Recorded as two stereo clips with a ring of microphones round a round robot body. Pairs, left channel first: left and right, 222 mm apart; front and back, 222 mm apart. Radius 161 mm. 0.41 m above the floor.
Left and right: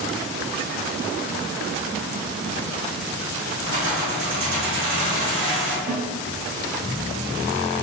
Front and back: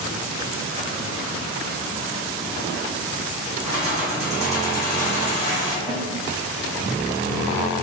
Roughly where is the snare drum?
Right.